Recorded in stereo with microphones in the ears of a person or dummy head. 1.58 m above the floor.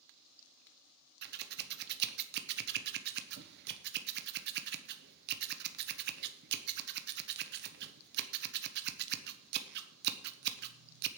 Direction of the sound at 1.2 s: 55° right (ahead or behind).